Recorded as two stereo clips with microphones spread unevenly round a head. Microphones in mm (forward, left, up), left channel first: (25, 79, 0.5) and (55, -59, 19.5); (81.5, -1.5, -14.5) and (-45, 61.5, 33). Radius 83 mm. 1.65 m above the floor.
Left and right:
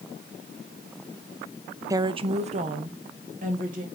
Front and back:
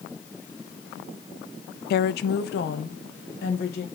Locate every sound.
1.9 s a woman speaking: 10° right, 0.5 m; by 3.9 s 50° right, 2 m